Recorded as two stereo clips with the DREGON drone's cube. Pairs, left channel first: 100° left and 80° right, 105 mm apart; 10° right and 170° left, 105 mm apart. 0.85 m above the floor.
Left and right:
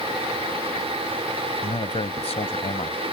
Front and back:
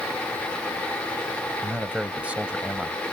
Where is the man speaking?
90° left.